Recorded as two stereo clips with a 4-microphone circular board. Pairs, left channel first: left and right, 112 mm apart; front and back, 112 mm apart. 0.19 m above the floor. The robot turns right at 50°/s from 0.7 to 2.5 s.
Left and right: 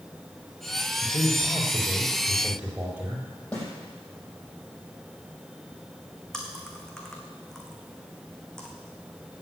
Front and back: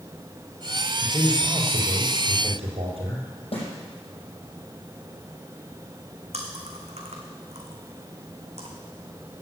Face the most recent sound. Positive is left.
turn(degrees=175)